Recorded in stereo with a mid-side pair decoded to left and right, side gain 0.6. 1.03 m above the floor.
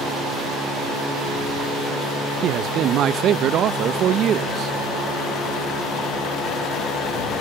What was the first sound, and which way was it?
A man speaking, 55° right.